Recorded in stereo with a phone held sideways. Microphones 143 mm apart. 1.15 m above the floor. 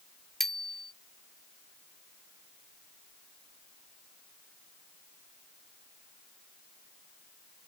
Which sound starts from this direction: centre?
A bicycle bell, at 0.4 s.